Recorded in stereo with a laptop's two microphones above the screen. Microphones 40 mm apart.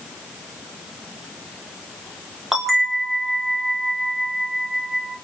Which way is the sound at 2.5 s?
10° right (ahead or behind).